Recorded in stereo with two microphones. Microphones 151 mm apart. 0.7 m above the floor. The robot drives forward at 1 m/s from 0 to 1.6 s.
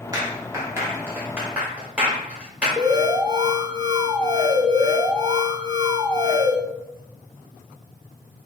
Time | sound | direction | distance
0.1 | a clap | 25° right (ahead or behind) | 1.1 m
2.8 | an alarm | 25° right (ahead or behind) | 0.5 m